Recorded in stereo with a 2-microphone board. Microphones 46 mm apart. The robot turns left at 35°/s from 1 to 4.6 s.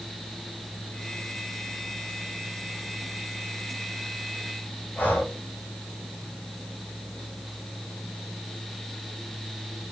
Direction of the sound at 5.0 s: 45° left (ahead or behind).